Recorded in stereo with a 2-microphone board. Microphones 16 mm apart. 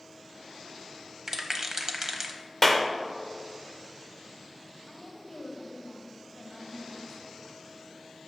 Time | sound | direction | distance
1.3 | a rattle | 25° right (ahead or behind) | 0.7 m
2.6 | a clap | 15° left (ahead or behind) | 0.7 m
4.9 | a woman speaking | 35° left (ahead or behind) | 1.7 m